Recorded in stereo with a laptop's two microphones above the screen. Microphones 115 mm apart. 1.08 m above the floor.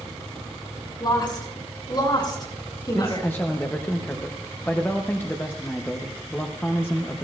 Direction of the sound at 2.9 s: 20° left (ahead or behind).